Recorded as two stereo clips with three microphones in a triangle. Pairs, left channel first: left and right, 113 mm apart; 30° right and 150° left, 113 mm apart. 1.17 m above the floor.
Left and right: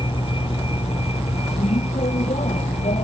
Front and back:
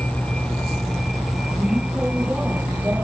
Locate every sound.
0.0 s a vehicle: 50° left; by 3.0 s 75° left